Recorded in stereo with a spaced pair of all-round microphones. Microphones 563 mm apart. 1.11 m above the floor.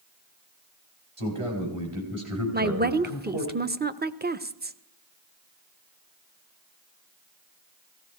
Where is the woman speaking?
20° right (ahead or behind), 0.6 m.